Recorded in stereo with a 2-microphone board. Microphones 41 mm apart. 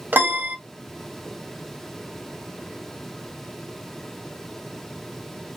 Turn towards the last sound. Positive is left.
turn(degrees=-55)  # may be behind; listen again after turning